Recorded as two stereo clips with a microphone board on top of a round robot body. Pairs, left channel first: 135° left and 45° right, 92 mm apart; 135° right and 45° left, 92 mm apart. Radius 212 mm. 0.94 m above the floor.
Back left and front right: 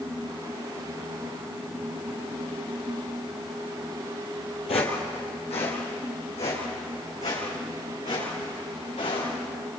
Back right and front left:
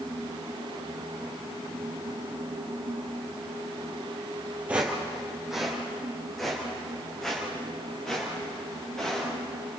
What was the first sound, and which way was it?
Footsteps, 120° left.